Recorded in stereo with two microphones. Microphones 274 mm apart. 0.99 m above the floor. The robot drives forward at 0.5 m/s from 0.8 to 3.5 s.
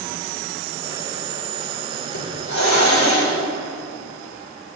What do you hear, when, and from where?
2.1 s a hiss: 80° left, 3.5 m